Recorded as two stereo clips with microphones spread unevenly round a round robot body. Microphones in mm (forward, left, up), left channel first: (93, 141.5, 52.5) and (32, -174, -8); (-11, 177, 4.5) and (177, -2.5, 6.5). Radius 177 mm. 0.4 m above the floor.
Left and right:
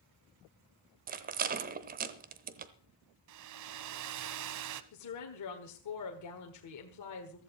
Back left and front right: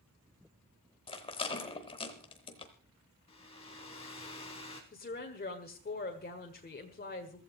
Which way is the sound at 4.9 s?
100° left.